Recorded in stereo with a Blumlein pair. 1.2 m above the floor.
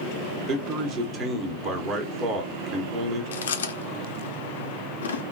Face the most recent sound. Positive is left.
turn(degrees=65)